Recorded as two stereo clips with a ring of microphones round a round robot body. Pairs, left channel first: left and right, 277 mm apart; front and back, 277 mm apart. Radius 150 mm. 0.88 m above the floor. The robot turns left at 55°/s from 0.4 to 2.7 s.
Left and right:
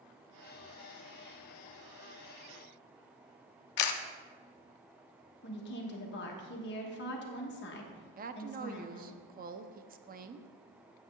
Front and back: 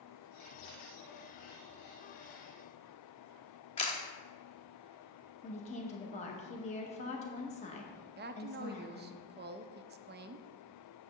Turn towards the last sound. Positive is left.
turn(degrees=-140)